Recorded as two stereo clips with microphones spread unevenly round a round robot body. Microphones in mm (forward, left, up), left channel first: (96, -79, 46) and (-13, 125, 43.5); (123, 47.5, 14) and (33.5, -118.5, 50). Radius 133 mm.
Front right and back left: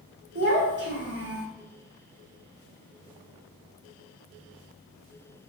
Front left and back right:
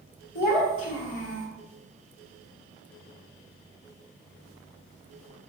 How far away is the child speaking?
About 1.5 m.